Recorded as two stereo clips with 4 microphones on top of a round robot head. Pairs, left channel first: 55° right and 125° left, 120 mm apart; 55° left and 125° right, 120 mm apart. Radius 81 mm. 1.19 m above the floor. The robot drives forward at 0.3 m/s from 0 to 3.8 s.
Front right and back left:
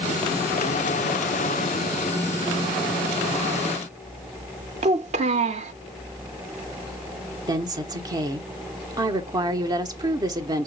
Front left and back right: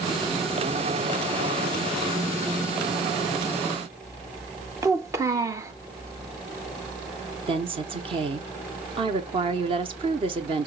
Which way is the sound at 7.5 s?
175° right.